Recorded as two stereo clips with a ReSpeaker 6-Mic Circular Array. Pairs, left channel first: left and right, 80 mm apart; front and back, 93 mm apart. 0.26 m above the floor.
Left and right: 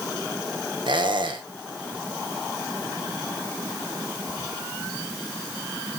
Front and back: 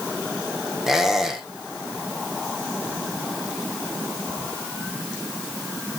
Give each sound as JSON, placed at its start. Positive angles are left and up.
{"t": 0.9, "sound": "a squeak", "azimuth_deg": -95, "distance_m": 2.5}